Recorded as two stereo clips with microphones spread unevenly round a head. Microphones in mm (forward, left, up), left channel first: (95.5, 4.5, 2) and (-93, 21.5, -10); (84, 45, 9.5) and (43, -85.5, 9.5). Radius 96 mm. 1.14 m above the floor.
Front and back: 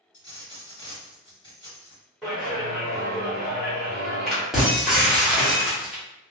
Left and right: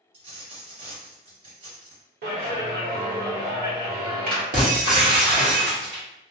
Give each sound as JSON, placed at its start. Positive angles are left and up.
{"t": 0.1, "sound": "a dropped coin", "azimuth_deg": -70, "distance_m": 1.9}
{"t": 2.2, "sound": "a clap", "azimuth_deg": -95, "distance_m": 1.0}
{"t": 4.5, "sound": "breaking glass", "azimuth_deg": -95, "distance_m": 1.0}